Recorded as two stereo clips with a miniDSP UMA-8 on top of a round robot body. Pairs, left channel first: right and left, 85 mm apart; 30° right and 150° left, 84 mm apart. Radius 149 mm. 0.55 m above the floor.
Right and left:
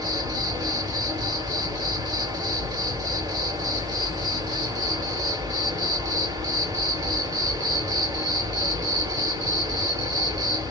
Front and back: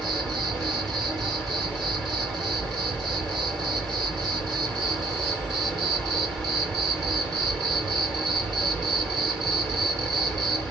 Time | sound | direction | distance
0.0 | an insect | 55° left | 1.7 m